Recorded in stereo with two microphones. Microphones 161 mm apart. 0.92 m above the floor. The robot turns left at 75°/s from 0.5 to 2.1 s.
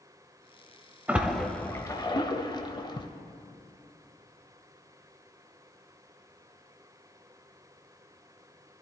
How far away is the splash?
About 0.8 m.